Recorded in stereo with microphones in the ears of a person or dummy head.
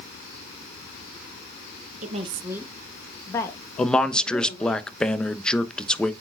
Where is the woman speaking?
45° right (ahead or behind), 1.0 m; by 4.8 s 30° left (ahead or behind), 3 m.